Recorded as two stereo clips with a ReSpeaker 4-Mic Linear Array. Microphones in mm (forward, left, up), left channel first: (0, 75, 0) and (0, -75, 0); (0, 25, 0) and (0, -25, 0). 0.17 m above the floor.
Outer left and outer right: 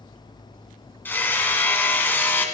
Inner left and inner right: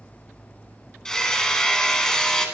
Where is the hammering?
15° left (ahead or behind), 1.2 m.